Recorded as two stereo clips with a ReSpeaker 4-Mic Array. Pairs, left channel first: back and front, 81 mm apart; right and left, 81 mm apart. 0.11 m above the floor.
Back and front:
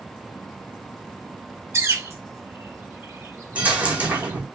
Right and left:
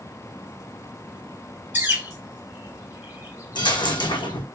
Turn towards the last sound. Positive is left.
turn(degrees=-75)